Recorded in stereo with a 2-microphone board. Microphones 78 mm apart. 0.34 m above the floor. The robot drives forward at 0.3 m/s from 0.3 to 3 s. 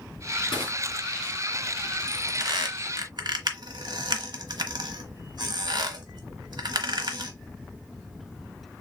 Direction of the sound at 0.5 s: 75° left (ahead or behind).